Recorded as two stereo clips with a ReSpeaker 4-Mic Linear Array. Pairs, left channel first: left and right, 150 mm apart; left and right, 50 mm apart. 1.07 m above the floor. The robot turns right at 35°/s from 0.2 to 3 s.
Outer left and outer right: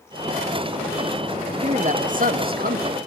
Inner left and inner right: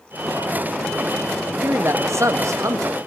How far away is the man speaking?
About 1.4 m.